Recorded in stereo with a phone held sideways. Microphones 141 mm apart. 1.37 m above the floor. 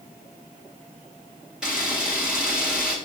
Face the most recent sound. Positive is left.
turn(degrees=-5)  # may be behind; listen again after turning